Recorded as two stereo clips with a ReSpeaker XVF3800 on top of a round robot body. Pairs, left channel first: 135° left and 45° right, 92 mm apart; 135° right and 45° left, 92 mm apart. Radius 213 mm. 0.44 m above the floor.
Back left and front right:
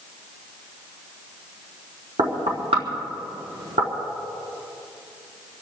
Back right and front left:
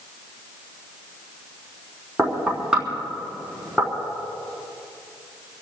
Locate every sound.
2.2 s knocking: 35° right, 4.5 m